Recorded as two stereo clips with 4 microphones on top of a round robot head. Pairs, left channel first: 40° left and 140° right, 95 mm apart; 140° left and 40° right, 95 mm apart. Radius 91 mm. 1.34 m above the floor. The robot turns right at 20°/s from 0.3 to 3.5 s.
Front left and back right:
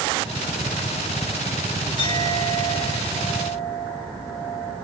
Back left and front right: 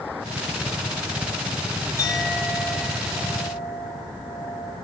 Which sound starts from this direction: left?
A clink, at 2.0 s.